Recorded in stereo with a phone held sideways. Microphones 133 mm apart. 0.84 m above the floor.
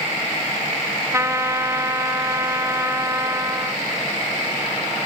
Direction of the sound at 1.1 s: 20° right (ahead or behind).